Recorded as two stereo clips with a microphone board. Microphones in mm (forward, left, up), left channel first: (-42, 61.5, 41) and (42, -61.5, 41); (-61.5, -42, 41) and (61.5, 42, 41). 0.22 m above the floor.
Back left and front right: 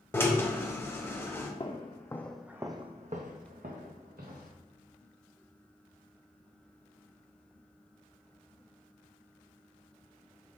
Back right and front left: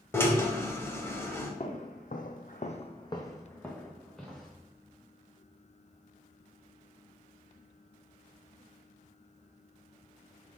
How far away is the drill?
About 0.7 m.